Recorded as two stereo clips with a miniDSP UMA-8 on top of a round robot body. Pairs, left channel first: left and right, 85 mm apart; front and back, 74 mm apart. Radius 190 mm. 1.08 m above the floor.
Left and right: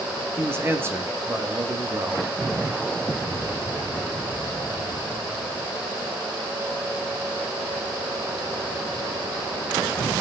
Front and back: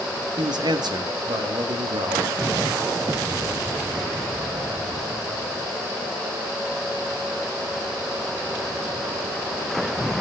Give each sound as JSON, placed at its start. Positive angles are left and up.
{"t": 0.4, "sound": "a man speaking", "azimuth_deg": -155, "distance_m": 2.0}